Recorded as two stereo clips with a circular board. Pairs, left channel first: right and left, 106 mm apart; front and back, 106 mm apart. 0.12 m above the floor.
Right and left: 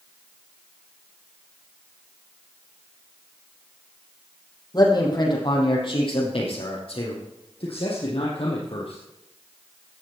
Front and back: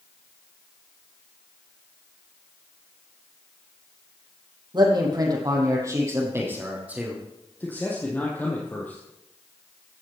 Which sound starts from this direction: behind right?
A man speaking, at 4.7 s.